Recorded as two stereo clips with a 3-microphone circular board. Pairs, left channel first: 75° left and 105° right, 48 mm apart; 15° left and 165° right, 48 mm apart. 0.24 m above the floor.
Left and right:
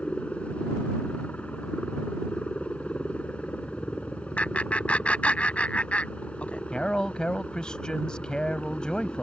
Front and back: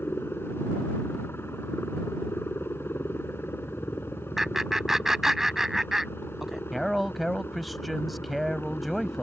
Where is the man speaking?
105° left.